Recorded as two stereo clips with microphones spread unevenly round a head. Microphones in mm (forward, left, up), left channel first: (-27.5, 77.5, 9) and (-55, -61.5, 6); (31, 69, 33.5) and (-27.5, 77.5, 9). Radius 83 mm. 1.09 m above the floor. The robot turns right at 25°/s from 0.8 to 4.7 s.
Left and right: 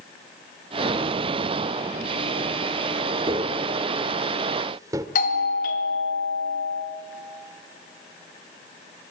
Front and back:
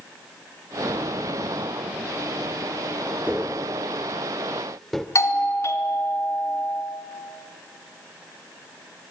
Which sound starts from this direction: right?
Tapping, at 3.3 s.